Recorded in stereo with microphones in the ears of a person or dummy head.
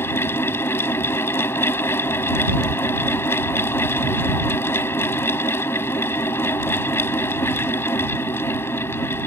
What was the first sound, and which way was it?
A fan, 10° left (ahead or behind).